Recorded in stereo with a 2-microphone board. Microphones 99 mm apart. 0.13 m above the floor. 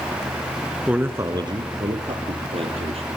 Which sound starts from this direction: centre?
A man speaking, at 0.9 s.